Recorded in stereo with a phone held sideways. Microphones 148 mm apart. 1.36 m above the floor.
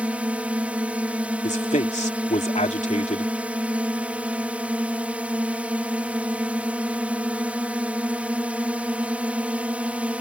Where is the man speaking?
50° left (ahead or behind).